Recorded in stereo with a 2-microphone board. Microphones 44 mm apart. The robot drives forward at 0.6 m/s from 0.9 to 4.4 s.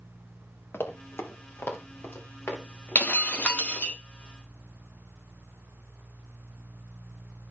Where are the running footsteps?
60° left (ahead or behind), 1.7 m; by 4.0 s 65° left (ahead or behind), 4.5 m.